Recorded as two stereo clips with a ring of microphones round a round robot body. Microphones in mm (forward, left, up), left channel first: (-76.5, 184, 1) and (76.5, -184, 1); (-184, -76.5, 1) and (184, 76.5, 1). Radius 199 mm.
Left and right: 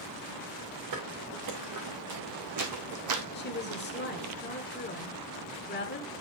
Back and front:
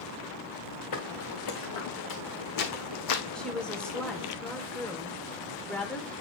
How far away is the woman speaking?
About 1.3 m.